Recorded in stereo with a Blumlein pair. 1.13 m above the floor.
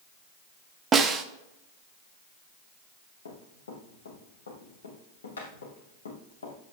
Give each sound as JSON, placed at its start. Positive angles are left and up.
{"t": 0.9, "sound": "a snare drum", "azimuth_deg": -20, "distance_m": 1.2}
{"t": 3.2, "sound": "running footsteps", "azimuth_deg": 65, "distance_m": 3.5}